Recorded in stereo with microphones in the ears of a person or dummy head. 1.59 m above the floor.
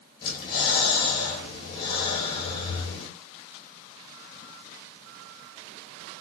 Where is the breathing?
25° left (ahead or behind), 1.4 m.